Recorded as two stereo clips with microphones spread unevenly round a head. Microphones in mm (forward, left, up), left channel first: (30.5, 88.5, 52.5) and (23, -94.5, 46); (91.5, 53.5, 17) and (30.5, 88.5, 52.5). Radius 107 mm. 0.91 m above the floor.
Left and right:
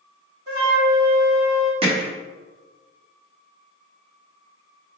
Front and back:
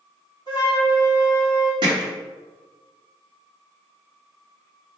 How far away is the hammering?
About 0.7 m.